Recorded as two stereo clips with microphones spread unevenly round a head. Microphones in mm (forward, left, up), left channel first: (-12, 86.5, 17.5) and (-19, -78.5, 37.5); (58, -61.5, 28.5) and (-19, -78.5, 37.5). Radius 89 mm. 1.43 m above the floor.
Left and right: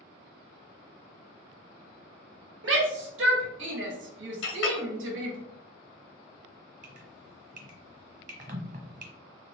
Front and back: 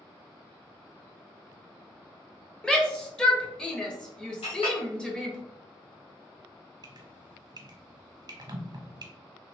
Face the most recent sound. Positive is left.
turn(degrees=-135)